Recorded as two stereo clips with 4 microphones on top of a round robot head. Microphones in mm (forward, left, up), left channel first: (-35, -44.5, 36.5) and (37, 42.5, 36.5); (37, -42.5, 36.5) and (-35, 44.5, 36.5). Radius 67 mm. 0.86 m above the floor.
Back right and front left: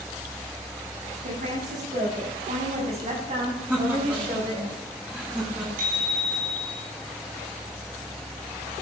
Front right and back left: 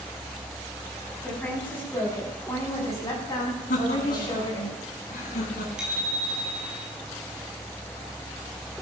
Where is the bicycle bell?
45° left, 6 m.